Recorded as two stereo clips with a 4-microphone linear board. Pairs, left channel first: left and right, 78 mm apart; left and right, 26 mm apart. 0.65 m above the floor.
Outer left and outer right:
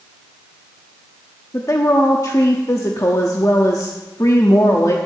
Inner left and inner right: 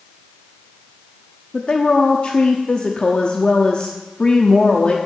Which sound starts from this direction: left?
A woman speaking, at 1.5 s.